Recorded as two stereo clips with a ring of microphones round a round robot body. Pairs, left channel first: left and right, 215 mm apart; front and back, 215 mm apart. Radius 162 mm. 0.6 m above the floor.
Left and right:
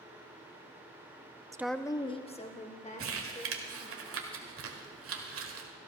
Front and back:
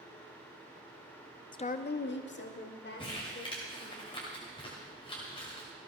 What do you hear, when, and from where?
1.5 s a woman speaking: 35° right, 0.6 m; by 4.0 s 35° left, 3.5 m
3.0 s crumpling: 70° right, 1.5 m